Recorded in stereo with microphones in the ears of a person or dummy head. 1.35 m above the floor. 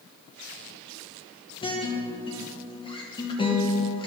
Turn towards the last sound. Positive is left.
turn(degrees=25)  # may be behind; listen again after turning